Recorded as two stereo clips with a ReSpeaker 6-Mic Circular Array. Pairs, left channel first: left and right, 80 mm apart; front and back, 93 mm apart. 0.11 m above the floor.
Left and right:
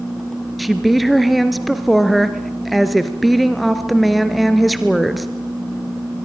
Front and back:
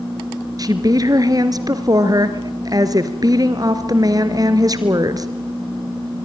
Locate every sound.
0.6 s a woman speaking: straight behind, 2 m